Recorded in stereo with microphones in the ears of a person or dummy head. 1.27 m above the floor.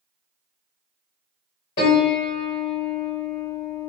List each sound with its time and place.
1.8 s a piano: 20° left (ahead or behind), 1.0 m